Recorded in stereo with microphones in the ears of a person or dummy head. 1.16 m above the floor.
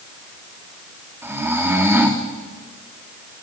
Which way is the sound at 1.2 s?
10° right (ahead or behind).